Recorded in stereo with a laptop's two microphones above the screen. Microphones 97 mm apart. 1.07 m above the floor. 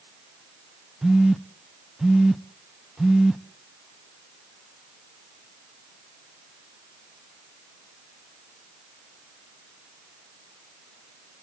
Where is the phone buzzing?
5° right (ahead or behind), 0.5 m.